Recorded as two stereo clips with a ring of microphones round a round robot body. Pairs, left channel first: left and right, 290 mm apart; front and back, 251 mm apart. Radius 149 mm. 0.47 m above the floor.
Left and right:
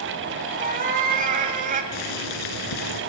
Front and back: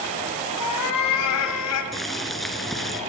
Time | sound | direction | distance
0.6 | a cat meowing | 30° right | 1.8 m
1.9 | boiling | 90° left | 2.5 m